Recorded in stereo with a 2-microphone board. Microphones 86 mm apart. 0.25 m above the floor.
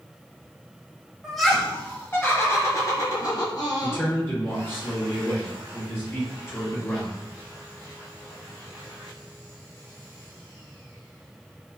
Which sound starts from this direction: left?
A man speaking, at 3.8 s.